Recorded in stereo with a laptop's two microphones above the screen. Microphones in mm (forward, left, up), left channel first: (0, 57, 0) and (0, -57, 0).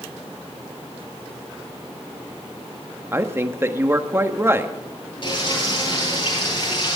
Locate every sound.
3.1 s a woman speaking: 20° right (ahead or behind), 1.4 m
5.2 s frying: 50° left (ahead or behind), 9.5 m